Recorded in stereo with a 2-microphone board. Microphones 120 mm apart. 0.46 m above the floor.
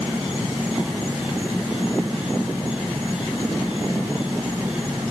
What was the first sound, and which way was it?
An insect, 10° right (ahead or behind).